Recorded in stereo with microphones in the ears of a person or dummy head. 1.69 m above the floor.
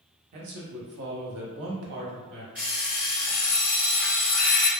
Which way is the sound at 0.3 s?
50° right (ahead or behind).